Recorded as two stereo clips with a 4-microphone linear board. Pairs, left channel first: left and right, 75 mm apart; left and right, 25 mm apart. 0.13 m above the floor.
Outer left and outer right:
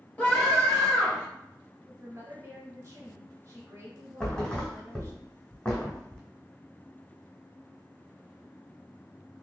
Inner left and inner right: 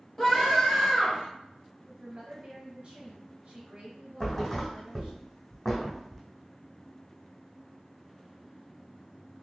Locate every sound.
0.2 s a scream: 20° left (ahead or behind), 2 m
1.9 s a woman speaking: 30° right (ahead or behind), 1.8 m
4.2 s a thud: 15° left (ahead or behind), 1.7 m